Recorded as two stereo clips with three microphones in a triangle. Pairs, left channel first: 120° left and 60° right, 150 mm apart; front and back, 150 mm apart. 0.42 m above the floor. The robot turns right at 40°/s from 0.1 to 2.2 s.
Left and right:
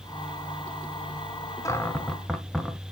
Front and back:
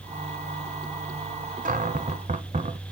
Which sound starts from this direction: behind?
A cupboard door, at 1.6 s.